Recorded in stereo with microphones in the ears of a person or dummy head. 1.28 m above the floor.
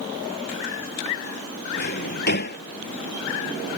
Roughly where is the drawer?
Left.